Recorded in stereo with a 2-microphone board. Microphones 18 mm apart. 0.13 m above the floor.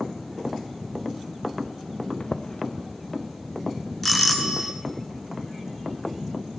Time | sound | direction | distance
2.2 | footsteps | 65° left (ahead or behind) | 0.7 m
4.0 | a doorbell | centre (ahead or behind) | 1.8 m